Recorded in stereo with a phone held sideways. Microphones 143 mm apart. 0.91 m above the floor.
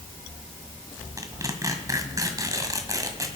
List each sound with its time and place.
1.2 s tearing paper: 25° right (ahead or behind), 1.7 m